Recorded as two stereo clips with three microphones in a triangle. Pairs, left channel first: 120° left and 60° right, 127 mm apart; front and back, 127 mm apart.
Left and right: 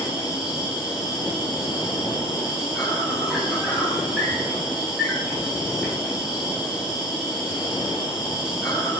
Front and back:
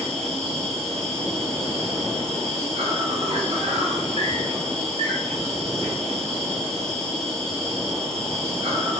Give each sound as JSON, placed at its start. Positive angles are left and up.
{"t": 0.0, "sound": "an insect", "azimuth_deg": -145, "distance_m": 4.5}